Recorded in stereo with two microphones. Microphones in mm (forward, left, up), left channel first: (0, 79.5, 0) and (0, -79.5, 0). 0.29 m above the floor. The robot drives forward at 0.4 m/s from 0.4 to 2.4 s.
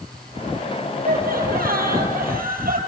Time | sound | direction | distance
1.0 | laughter | 70° right (ahead or behind) | 7 m